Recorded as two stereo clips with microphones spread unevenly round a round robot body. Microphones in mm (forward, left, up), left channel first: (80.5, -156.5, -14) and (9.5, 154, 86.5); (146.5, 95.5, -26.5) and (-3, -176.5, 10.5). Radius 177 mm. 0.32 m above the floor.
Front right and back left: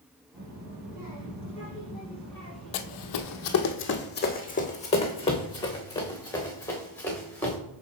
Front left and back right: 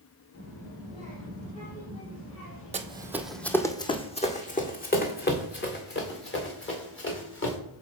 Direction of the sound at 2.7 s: 55° right.